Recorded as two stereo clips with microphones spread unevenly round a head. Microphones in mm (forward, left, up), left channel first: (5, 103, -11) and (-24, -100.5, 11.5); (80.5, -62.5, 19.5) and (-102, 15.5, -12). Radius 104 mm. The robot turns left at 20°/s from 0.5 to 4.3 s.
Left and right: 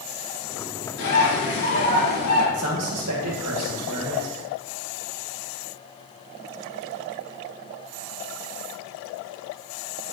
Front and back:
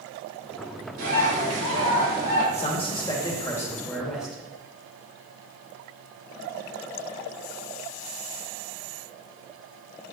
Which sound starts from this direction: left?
A bird, at 1.0 s.